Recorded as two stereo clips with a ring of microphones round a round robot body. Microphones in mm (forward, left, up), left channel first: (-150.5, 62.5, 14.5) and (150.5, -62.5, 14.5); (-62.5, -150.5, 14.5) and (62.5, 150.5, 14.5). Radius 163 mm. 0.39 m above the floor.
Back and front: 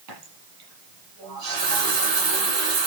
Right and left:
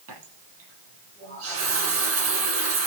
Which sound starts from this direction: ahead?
A running tap, at 0.1 s.